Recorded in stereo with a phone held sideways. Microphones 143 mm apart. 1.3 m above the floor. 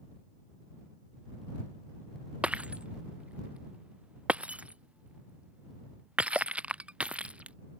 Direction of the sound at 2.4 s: 5° right (ahead or behind).